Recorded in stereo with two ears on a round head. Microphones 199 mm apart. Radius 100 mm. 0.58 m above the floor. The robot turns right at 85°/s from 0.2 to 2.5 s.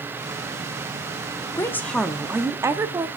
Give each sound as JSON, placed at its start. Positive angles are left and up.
{"t": 1.6, "sound": "a woman speaking", "side_deg": 15, "distance_m": 0.6}